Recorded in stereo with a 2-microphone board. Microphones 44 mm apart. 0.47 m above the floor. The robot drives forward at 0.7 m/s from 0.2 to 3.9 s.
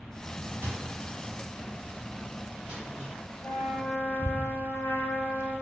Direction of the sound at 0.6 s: 65° right (ahead or behind).